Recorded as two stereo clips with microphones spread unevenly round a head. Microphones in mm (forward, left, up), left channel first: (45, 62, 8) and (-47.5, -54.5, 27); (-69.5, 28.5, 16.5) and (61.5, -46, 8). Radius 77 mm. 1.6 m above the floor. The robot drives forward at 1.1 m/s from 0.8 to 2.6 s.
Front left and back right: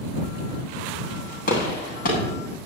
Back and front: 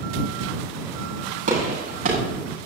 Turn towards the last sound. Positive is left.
turn(degrees=15)